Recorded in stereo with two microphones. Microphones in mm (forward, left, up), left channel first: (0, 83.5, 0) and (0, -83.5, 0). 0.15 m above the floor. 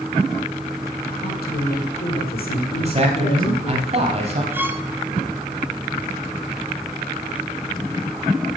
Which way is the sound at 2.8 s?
40° right (ahead or behind).